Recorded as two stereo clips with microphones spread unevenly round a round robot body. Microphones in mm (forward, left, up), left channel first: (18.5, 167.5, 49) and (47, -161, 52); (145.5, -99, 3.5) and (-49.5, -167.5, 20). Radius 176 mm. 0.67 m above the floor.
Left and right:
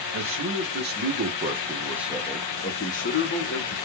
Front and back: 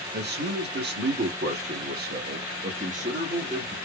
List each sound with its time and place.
0.1 s a man speaking: 130° right, 1.7 m; by 3.8 s 125° left, 1.4 m